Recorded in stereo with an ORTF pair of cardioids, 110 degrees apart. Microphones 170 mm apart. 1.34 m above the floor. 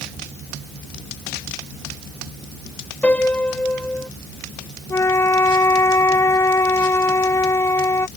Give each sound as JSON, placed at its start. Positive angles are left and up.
{"t": 3.0, "sound": "a piano", "azimuth_deg": 10}
{"t": 4.9, "sound": "a flute", "azimuth_deg": 15}